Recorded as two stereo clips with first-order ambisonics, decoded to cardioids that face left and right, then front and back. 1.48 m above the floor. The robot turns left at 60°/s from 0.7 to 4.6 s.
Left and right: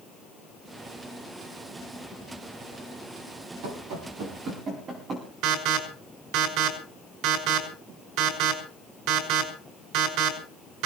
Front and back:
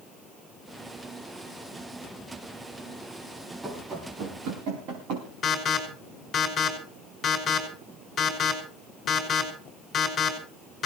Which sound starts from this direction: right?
Running footsteps, at 3.6 s.